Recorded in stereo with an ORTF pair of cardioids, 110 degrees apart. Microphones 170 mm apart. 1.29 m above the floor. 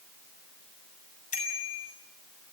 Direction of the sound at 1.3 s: 55° left.